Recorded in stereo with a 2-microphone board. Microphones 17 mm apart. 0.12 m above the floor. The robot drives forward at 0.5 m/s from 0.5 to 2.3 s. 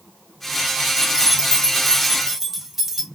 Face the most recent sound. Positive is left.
turn(degrees=-15)  # may be behind; listen again after turning